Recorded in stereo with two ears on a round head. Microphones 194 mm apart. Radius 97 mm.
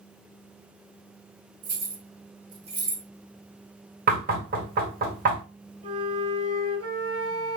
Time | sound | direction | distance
1.6 | keys jangling | 70° right (ahead or behind) | 1.5 m
4.1 | knocking | 40° right (ahead or behind) | 1.4 m
5.8 | a flute | 30° right (ahead or behind) | 1.5 m